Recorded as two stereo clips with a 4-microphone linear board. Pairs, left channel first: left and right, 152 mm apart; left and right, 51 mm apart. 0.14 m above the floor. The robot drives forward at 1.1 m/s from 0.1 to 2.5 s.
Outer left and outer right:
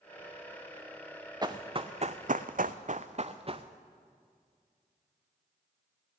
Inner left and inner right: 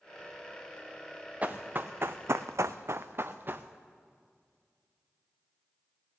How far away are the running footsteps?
About 0.9 m.